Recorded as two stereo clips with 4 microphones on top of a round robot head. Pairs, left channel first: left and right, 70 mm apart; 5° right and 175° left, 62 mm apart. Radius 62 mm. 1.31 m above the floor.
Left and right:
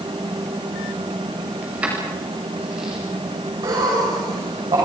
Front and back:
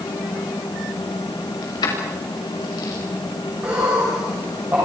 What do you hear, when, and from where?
1.6 s keys jangling: 15° right, 5.5 m; by 3.0 s 10° right, 6 m
3.6 s laughter: 120° right, 7 m